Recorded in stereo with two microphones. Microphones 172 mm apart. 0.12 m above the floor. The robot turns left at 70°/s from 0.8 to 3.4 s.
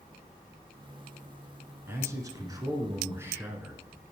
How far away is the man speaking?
About 1.2 m.